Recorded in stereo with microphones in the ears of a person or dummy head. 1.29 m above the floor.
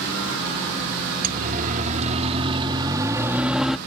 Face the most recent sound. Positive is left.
turn(degrees=0)  # may be behind; listen again after turning